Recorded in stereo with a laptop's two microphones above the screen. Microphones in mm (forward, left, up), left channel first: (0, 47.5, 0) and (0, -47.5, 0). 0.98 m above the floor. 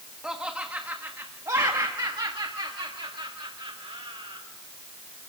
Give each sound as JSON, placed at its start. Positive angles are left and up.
{"t": 0.2, "sound": "laughter", "side_deg": -10, "distance_m": 1.3}